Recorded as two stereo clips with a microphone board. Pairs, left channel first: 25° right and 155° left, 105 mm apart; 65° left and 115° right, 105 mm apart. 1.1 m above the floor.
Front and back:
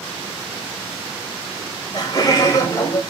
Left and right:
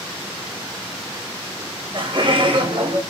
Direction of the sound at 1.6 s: 70° right.